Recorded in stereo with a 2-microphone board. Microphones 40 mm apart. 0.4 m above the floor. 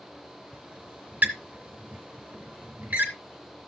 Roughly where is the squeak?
Right.